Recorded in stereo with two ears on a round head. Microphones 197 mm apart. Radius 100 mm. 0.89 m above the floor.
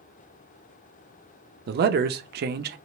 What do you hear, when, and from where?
1.7 s a man speaking: 45° right (ahead or behind), 0.7 m